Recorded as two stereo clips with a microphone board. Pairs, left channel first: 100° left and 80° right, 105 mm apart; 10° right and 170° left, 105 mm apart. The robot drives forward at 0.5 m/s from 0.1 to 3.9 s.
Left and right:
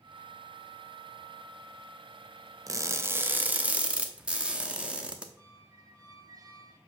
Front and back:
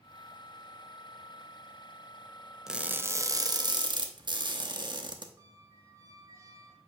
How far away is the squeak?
About 0.9 m.